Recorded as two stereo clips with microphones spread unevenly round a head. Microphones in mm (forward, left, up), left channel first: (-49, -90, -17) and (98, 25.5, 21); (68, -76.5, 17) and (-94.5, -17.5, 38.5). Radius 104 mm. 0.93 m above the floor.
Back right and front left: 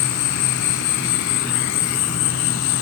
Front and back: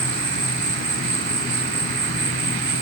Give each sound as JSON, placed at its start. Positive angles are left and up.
{"t": 0.0, "sound": "an insect", "azimuth_deg": -175}